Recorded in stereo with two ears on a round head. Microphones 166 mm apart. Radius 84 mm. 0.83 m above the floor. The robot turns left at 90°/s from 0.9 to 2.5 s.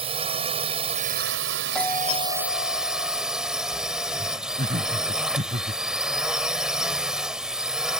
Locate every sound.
0.0 s a drone: 30° right; by 8.0 s 175° right
1.8 s a doorbell: 175° left; by 3.2 s 110° left
4.6 s laughter: 40° right (ahead or behind)